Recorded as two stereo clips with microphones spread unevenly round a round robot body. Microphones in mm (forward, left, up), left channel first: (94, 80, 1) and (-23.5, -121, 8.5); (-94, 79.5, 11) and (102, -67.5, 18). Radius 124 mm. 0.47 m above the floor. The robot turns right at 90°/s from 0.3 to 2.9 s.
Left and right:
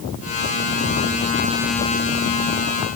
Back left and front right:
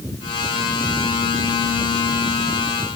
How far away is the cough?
No cough in this recording.